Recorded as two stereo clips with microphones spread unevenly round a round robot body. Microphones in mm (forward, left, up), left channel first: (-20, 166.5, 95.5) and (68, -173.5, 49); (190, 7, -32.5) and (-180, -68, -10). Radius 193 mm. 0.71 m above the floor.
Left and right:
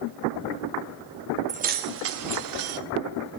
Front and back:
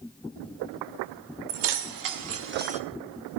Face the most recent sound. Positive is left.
turn(degrees=-95)